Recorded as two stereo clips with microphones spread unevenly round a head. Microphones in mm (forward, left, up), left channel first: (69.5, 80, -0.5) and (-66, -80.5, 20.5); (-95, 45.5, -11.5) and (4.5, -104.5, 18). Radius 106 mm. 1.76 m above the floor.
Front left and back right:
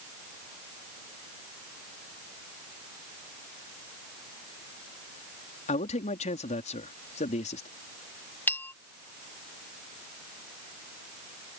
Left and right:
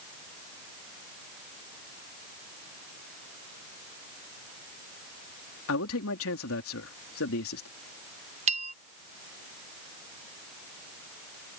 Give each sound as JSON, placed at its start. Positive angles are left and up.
{"t": 5.7, "sound": "a man speaking", "azimuth_deg": 110}
{"t": 8.5, "sound": "a bell", "azimuth_deg": -35}